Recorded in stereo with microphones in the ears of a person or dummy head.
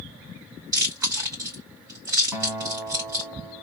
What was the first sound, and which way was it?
Chewing, 15° right (ahead or behind).